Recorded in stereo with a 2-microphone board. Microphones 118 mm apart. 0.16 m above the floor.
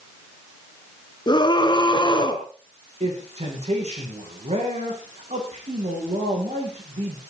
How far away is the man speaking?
About 9.5 m.